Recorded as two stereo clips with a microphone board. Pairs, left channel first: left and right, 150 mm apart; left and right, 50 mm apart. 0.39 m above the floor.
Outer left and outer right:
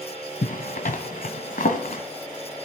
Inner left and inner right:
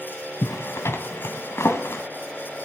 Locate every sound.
0.4 s a zipper: 65° left (ahead or behind), 1.4 m